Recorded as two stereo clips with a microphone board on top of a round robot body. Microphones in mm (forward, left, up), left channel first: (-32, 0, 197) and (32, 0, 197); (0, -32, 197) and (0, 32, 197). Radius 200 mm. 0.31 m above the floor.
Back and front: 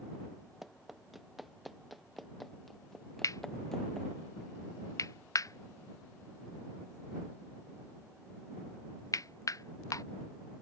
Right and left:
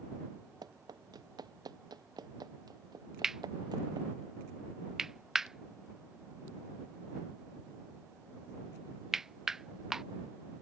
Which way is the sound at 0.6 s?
85° left.